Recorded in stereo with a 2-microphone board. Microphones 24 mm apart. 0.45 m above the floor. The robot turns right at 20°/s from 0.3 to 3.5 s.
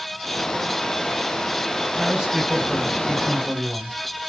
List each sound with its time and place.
1.9 s a man speaking: 170° right, 1.8 m; by 4.0 s 140° right, 1.8 m